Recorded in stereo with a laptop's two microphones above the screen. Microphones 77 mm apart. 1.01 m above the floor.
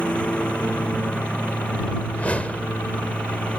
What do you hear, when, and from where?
0.0 s a lawn mower: 15° left (ahead or behind)
2.1 s a whoosh: 20° left (ahead or behind)